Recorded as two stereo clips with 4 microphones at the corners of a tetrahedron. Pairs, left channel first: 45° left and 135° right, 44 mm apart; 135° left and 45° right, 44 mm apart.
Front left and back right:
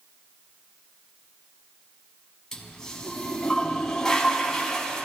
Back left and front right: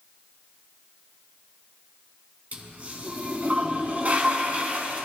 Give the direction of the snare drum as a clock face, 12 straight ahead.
I don't hear a snare drum.